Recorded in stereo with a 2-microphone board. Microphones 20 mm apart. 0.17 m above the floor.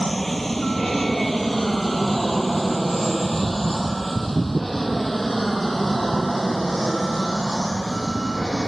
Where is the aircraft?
10° left (ahead or behind); by 8.7 s 5° left (ahead or behind).